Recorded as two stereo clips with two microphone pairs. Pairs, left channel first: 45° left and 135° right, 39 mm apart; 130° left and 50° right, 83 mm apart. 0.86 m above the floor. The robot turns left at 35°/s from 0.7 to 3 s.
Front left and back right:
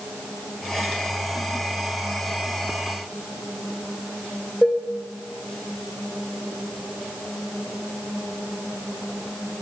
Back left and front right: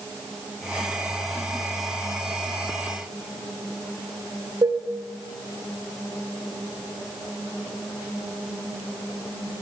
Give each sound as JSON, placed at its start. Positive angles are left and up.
{"t": 4.6, "sound": "dishes clattering", "azimuth_deg": -30, "distance_m": 2.5}